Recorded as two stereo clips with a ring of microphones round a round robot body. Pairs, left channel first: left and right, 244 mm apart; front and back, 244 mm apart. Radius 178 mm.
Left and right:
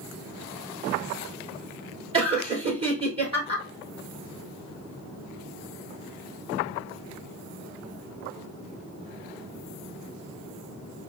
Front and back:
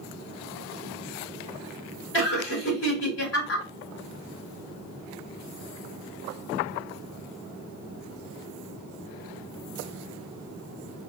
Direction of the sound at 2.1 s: 25° right.